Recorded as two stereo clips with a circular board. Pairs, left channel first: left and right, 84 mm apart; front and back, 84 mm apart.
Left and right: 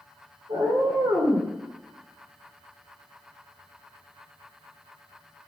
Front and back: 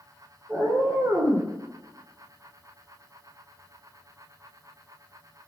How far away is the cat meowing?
About 1.2 m.